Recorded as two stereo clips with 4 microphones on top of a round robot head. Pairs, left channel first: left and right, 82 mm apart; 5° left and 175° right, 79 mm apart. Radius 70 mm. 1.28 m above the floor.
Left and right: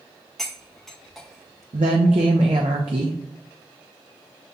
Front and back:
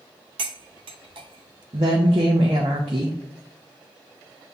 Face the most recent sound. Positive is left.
turn(degrees=-125)